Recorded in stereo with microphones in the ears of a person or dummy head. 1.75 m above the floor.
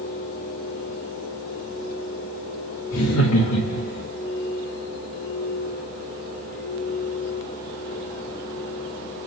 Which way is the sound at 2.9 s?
85° left.